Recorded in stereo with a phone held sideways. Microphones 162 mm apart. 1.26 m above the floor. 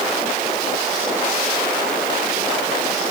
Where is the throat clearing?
No throat clearing in this recording.